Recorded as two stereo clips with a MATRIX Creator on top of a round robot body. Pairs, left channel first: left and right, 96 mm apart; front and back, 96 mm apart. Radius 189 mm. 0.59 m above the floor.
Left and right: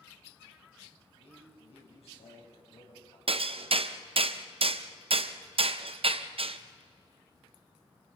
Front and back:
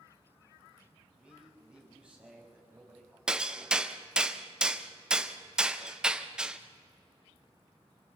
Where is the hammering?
100° right, 1.1 m.